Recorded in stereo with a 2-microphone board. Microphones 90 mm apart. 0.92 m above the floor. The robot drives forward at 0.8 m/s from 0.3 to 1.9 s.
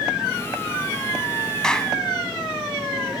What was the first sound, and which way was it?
A clap, 5° left (ahead or behind).